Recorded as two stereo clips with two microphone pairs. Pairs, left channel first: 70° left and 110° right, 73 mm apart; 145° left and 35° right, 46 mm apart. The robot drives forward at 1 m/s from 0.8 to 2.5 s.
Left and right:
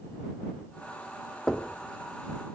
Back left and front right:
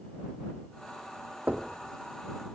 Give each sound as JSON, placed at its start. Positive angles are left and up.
{"t": 1.5, "sound": "knocking", "azimuth_deg": -5, "distance_m": 1.1}